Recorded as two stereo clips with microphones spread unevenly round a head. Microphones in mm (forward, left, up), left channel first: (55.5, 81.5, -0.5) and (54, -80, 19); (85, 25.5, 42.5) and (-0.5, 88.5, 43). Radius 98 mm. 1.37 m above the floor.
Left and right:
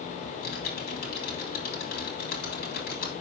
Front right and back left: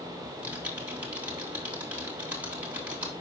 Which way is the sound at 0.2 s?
65° left.